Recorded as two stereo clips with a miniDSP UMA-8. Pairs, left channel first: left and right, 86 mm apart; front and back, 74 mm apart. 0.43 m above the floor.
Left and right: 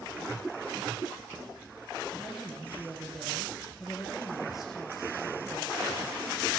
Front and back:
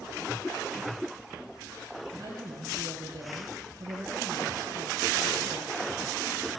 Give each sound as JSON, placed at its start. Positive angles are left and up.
{"t": 2.1, "sound": "a woman speaking", "azimuth_deg": 180, "distance_m": 7.5}